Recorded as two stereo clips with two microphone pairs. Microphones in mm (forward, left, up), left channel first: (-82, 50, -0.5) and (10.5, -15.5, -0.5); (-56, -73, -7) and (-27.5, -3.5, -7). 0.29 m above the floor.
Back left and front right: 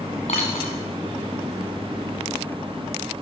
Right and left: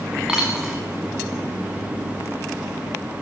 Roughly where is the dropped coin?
Behind left.